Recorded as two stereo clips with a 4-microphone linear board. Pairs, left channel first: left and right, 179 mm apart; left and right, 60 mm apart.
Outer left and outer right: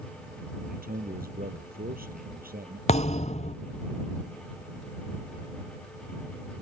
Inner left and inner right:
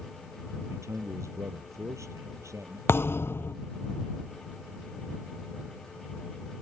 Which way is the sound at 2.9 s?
40° left (ahead or behind).